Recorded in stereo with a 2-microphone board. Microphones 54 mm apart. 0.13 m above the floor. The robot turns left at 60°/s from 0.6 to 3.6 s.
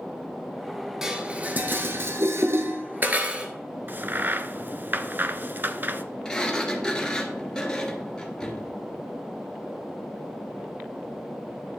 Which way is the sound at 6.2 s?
15° left (ahead or behind).